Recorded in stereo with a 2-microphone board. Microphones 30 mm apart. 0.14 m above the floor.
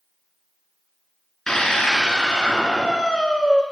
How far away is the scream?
About 2 m.